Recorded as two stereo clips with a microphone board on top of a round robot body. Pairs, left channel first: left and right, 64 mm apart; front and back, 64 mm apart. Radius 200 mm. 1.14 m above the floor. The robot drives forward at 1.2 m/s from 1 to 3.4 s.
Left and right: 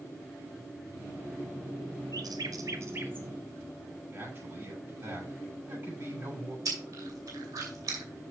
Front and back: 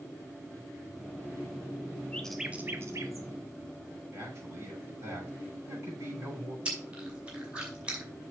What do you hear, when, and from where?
2.1 s a bird: 70° right, 0.7 m; by 3.3 s 150° right, 1.3 m
4.1 s a man speaking: 140° right, 6.5 m
6.7 s chewing: 110° right, 2.5 m